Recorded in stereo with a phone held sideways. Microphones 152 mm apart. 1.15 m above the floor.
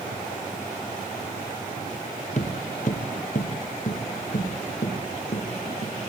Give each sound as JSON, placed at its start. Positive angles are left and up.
{"t": 2.4, "sound": "footsteps", "side_deg": 55, "distance_m": 1.8}